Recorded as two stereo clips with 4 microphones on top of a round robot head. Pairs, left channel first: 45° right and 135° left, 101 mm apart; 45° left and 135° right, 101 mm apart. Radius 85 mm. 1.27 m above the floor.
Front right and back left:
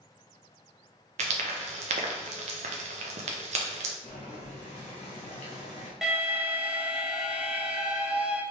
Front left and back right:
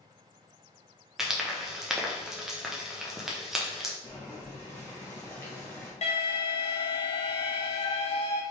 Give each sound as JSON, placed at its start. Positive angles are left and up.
{"t": 1.2, "sound": "frying", "azimuth_deg": 135, "distance_m": 0.6}
{"t": 4.0, "sound": "boiling", "azimuth_deg": -25, "distance_m": 0.8}
{"t": 6.0, "sound": "an alarm", "azimuth_deg": 50, "distance_m": 1.0}